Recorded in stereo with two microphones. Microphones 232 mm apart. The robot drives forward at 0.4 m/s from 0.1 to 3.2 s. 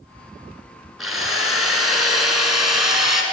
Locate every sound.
1.0 s a drill: centre (ahead or behind), 2 m